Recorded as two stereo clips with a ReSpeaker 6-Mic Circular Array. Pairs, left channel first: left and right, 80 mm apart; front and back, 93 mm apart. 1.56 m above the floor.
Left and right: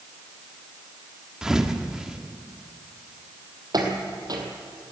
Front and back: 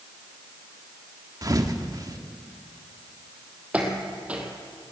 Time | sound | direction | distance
1.4 | a thud | 170° right | 1.3 m
3.7 | footsteps | 105° right | 3 m